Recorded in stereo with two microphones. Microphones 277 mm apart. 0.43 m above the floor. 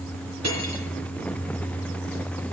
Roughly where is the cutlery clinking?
Right.